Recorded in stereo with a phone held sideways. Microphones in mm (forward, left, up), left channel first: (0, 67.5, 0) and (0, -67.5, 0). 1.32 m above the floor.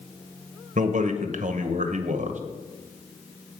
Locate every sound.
0.8 s a man speaking: 70° right (ahead or behind), 0.9 m